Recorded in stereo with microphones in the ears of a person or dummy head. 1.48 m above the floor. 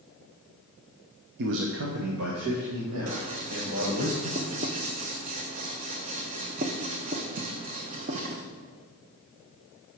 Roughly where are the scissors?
Right.